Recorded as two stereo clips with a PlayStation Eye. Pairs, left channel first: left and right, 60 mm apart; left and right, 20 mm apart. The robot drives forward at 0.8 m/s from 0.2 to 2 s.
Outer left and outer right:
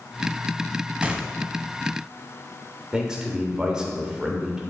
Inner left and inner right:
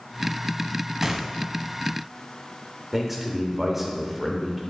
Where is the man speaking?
10° right (ahead or behind), 1.1 m.